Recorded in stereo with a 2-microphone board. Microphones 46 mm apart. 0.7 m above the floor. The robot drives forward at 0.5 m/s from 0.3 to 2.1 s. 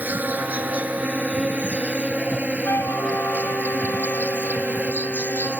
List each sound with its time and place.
0.0 s an insect: 40° right (ahead or behind); by 5.6 s 30° right (ahead or behind)
2.6 s a flute: 70° left (ahead or behind)